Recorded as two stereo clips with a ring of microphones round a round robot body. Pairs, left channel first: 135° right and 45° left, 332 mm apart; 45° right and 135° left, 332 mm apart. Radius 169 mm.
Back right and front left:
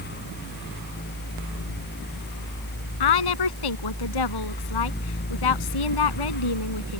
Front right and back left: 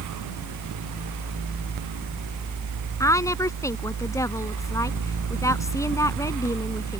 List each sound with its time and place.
3.0 s a woman speaking: 125° right